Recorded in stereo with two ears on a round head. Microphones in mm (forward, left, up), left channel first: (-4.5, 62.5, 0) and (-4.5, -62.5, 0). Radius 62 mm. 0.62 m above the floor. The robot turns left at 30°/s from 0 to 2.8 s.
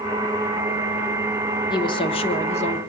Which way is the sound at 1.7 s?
140° left.